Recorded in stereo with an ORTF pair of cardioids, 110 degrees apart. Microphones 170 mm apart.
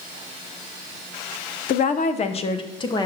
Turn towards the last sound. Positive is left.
turn(degrees=25)